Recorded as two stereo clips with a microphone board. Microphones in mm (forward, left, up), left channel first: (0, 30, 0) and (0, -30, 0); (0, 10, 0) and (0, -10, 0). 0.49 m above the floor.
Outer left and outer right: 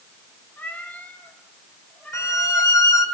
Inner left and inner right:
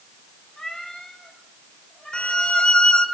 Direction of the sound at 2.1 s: 70° left (ahead or behind).